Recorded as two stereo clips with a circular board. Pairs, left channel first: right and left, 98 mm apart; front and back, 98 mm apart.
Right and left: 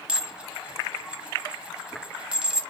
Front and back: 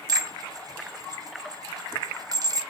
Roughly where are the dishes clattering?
Behind.